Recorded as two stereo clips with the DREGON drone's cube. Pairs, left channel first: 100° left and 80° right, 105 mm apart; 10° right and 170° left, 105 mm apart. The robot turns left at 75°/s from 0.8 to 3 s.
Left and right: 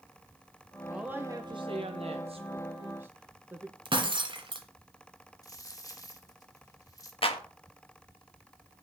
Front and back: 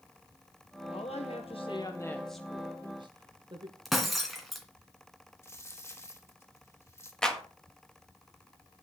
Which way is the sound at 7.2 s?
70° left.